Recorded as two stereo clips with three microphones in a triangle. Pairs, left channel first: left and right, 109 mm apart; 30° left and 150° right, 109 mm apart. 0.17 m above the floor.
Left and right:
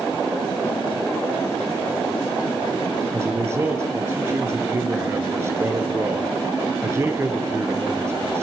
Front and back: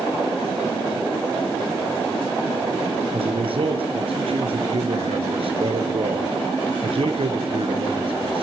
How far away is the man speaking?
About 3 m.